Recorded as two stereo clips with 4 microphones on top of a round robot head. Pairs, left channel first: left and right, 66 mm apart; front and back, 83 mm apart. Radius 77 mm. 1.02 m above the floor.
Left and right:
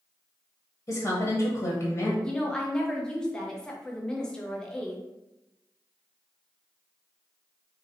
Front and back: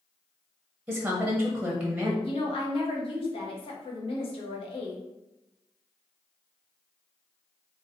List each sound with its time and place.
0.9 s a woman speaking: 105° left, 0.9 m
2.2 s a woman speaking: 10° left, 0.9 m